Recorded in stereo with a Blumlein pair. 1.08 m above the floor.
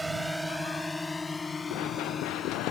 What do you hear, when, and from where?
0.0 s a drone: 5° right; by 2.7 s 20° left
1.7 s running footsteps: 40° left